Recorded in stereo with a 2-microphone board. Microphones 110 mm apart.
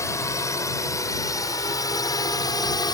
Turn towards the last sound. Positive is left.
turn(degrees=40)  # may be behind; listen again after turning